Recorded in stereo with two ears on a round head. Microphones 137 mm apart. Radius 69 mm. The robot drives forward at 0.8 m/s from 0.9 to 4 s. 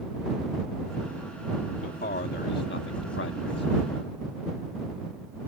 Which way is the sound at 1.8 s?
55° left (ahead or behind).